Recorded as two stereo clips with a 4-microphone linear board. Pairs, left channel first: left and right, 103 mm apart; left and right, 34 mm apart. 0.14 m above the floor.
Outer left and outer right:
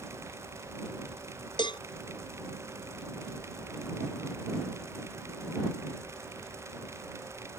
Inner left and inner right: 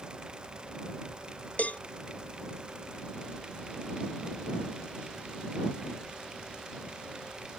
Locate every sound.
1.6 s a cowbell: 50° left (ahead or behind)